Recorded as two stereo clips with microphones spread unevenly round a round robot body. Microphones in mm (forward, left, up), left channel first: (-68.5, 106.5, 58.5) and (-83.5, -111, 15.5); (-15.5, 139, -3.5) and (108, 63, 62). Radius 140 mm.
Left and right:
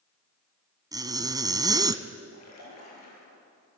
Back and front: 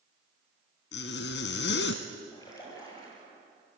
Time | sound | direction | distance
0.9 | a zipper | 170° right | 1.1 m
2.3 | a splash | 80° left | 9 m